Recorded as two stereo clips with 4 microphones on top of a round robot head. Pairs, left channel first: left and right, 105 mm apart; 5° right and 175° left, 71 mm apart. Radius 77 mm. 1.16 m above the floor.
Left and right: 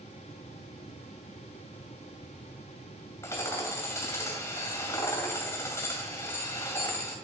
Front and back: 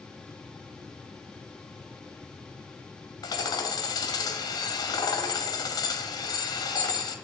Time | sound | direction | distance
3.2 | hammering | 20° left | 2 m